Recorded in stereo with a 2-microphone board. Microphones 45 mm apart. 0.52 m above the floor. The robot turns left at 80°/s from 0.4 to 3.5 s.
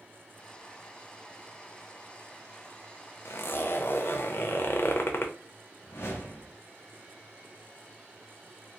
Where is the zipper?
75° left (ahead or behind), 0.6 m; by 5.3 s 55° left (ahead or behind), 0.6 m.